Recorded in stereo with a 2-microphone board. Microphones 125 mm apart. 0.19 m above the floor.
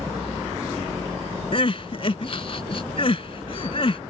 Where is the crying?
50° left (ahead or behind).